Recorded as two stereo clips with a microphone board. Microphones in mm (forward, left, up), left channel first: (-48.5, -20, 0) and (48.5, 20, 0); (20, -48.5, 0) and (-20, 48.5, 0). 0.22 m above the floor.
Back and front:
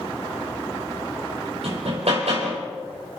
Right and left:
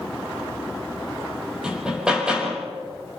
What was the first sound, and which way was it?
Hammering, 30° left.